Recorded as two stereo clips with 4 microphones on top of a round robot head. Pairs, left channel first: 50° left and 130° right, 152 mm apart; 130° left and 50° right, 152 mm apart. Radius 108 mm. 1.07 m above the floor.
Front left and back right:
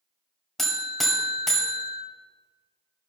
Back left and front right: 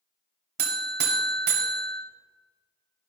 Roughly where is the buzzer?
Ahead right.